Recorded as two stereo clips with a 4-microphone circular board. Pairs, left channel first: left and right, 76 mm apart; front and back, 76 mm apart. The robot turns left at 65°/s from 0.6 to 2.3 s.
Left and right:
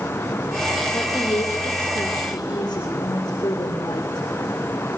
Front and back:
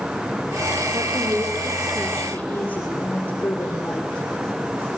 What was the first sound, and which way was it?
A woman speaking, 155° left.